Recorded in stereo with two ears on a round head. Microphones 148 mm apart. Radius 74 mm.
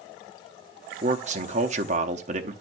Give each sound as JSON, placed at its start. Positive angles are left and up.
{"t": 1.0, "sound": "a man speaking", "side_deg": -45, "distance_m": 0.8}